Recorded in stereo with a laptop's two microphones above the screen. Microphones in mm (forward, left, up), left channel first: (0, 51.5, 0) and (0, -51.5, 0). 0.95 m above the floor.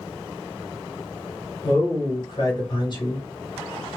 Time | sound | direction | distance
1.6 | a man speaking | 45° left (ahead or behind) | 1.2 m